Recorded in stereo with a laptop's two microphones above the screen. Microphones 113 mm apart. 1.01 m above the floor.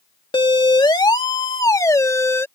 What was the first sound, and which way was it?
A siren, 50° left (ahead or behind).